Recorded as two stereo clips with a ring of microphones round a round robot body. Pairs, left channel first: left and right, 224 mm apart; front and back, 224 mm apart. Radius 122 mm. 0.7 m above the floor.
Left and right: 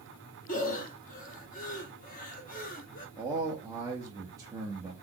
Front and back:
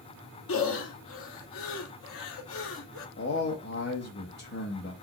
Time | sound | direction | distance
0.5 | breathing | 35° left | 0.6 m
3.2 | a man speaking | 15° right | 0.9 m